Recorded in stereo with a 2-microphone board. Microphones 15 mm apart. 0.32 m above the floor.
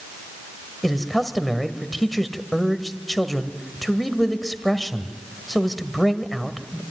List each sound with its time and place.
0.8 s a man speaking: 5° left (ahead or behind), 1.6 m